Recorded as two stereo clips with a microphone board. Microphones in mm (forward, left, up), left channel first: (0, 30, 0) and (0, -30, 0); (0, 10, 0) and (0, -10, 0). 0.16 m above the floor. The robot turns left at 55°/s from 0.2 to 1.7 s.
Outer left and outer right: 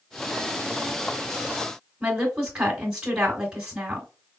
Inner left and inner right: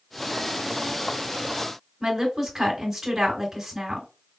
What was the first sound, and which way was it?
A woman speaking, 15° right (ahead or behind).